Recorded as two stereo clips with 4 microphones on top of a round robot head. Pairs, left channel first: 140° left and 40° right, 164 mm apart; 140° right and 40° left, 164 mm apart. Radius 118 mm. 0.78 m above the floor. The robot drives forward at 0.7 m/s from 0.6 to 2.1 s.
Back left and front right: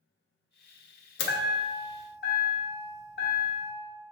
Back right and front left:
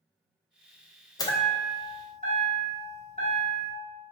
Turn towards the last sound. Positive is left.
turn(degrees=165)